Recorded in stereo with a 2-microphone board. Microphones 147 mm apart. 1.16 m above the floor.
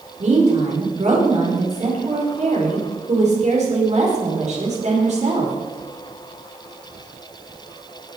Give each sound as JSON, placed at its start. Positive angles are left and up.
{"t": 0.2, "sound": "a woman speaking", "side_deg": -50, "distance_m": 4.5}